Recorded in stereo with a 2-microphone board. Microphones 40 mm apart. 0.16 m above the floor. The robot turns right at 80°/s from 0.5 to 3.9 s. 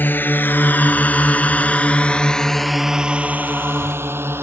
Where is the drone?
55° left (ahead or behind); by 4.4 s 75° right (ahead or behind).